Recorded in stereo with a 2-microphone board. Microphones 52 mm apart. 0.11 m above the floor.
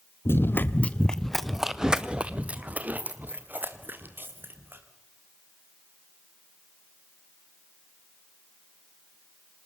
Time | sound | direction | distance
0.2 | running footsteps | 55° left (ahead or behind) | 1.2 m